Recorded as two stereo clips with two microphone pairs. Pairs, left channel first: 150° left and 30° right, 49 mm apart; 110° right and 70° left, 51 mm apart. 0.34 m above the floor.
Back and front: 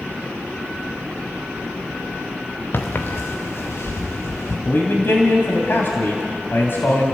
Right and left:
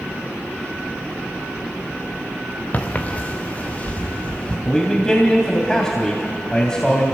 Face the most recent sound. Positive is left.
turn(degrees=175)